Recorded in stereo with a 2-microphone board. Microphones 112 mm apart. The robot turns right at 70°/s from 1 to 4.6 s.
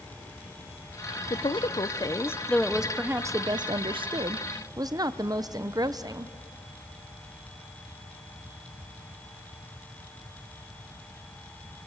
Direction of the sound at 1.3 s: 80° left.